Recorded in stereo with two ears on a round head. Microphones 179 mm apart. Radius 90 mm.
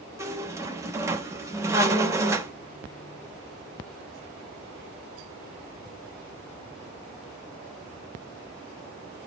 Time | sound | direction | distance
0.2 | a squeak | 15° right (ahead or behind) | 0.6 m